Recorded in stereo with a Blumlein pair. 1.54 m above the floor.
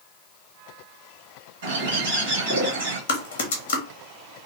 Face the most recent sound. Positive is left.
turn(degrees=55)